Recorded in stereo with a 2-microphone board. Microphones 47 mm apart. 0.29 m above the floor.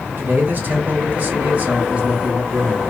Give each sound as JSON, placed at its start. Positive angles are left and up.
{"t": 0.2, "sound": "a man speaking", "side_deg": -45, "distance_m": 1.7}